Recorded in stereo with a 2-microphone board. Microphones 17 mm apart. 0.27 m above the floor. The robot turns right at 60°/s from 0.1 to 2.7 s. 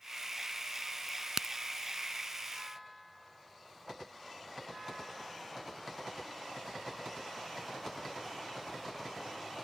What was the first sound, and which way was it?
A crack, 15° right (ahead or behind).